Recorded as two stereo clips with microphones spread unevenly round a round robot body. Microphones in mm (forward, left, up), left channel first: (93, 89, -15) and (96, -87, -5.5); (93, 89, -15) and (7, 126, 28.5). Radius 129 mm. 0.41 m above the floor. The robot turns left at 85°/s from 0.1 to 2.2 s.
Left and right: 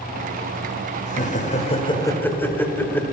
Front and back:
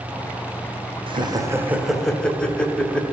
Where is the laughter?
115° left, 1.2 m; by 3.0 s 20° left, 1.2 m.